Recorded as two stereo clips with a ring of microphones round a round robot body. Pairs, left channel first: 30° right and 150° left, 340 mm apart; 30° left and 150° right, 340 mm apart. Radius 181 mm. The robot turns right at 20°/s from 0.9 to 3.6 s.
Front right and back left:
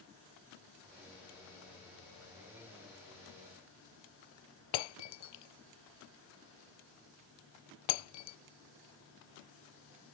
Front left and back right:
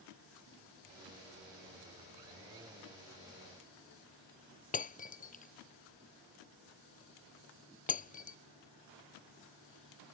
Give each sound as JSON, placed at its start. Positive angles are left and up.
{"t": 4.7, "sound": "breaking glass", "azimuth_deg": -40}